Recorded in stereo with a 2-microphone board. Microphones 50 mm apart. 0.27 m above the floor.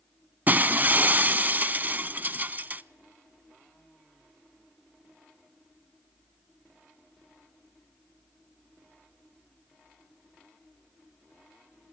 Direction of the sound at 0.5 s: 35° right (ahead or behind).